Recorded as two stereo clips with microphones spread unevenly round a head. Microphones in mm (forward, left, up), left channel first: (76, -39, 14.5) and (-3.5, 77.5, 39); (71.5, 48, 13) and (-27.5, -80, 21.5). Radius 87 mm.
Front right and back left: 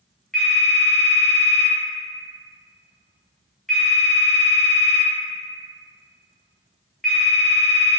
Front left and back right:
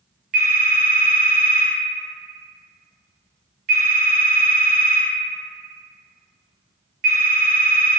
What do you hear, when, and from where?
0.3 s a phone ringing: 150° right, 0.6 m